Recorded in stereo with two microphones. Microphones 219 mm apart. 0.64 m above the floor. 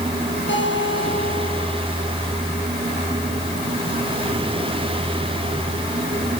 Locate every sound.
0.5 s a guitar: 60° left (ahead or behind), 8 m